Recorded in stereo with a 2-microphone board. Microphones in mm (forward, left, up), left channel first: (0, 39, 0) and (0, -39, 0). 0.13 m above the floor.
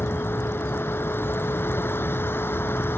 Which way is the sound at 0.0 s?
30° left (ahead or behind).